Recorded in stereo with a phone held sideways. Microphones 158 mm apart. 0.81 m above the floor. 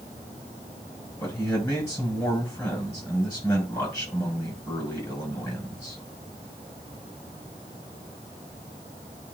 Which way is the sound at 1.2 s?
20° left (ahead or behind).